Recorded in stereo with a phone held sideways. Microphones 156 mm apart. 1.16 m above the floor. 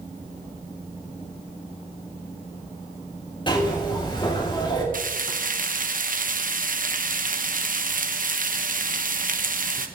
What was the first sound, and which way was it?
A zipper, 30° left (ahead or behind).